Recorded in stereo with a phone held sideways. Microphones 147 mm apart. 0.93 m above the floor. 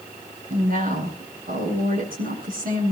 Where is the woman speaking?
85° right, 8.5 m.